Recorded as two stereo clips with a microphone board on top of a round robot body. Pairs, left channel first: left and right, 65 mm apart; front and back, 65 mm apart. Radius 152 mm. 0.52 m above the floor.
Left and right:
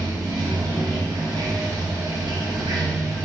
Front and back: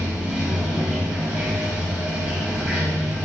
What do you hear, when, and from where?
0.0 s running water: 115° right, 1.8 m